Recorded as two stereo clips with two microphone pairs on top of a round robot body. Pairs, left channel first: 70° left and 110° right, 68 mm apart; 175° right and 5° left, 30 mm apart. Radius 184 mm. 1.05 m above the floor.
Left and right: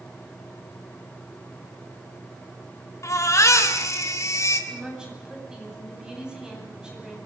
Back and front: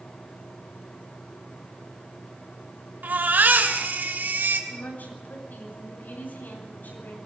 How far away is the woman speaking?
About 9.5 m.